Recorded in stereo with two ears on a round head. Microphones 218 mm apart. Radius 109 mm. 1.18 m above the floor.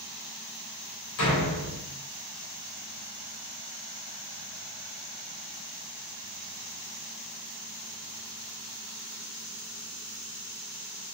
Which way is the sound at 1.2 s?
75° left (ahead or behind).